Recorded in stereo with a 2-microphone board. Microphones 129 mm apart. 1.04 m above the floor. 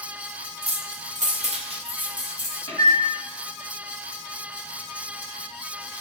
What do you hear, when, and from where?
0.6 s keys jangling: 50° right (ahead or behind), 0.5 m; by 2.6 s 30° right (ahead or behind), 1.2 m
2.7 s a microwave: 40° left (ahead or behind), 1.7 m